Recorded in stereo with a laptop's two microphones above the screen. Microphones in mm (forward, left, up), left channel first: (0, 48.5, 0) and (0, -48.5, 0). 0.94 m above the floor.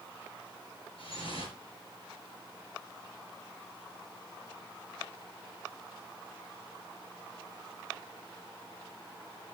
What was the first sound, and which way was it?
Dripping, 70° left (ahead or behind).